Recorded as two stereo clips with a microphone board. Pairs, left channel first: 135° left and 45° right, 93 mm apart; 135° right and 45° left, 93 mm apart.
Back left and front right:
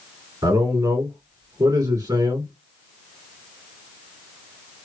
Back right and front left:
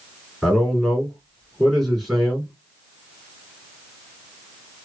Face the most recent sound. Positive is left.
turn(degrees=-45)